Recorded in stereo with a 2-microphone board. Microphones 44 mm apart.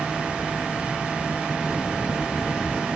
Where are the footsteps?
10° left (ahead or behind), 5.5 m; by 3.0 s 5° left (ahead or behind), 6 m.